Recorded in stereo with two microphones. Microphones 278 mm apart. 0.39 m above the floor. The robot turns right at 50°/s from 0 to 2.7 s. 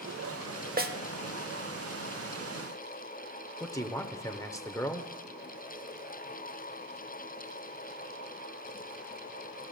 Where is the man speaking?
10° left (ahead or behind), 0.8 m.